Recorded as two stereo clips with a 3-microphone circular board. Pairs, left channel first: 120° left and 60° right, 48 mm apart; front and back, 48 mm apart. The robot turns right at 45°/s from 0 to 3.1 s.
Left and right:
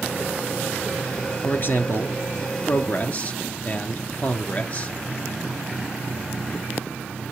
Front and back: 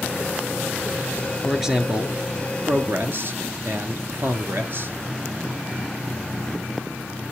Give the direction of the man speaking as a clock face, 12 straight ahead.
9 o'clock.